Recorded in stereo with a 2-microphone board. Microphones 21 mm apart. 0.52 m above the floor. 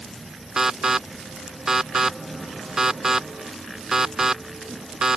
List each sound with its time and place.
0.6 s an alarm: 20° right (ahead or behind)